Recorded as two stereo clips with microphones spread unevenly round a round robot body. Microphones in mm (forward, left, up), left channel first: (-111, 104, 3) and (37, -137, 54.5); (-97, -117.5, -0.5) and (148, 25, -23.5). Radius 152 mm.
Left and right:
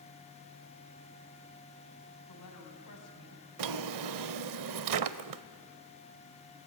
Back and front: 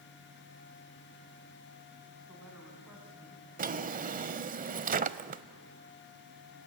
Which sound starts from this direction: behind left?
A woman speaking, at 2.3 s.